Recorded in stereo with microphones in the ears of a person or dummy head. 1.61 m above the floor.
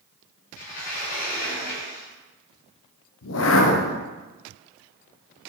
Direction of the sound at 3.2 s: 70° left (ahead or behind).